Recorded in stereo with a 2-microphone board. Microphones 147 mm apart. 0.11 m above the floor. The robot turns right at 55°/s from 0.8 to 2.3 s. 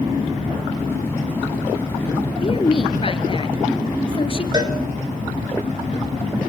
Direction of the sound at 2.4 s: 40° left (ahead or behind).